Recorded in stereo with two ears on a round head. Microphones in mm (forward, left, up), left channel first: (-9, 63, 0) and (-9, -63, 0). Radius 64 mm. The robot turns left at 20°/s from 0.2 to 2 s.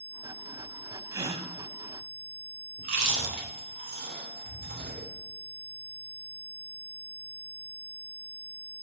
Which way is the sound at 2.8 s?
65° right (ahead or behind).